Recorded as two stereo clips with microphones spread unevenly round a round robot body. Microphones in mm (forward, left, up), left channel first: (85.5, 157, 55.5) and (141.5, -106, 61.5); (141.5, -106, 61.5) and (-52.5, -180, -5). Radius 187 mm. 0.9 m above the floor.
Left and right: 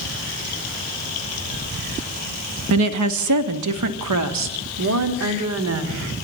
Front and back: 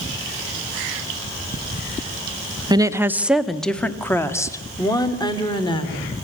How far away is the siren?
No siren in this recording.